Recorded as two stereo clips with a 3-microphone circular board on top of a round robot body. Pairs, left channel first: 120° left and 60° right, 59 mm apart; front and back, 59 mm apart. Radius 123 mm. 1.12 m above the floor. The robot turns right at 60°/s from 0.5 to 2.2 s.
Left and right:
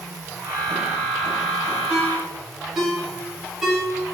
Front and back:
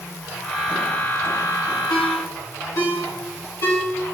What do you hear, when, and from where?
1.9 s a ringtone: 5° left, 3 m; by 3.8 s 25° left, 3 m